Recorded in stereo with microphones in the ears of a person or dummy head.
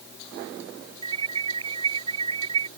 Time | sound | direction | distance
1.0 | an alarm | 25° right (ahead or behind) | ?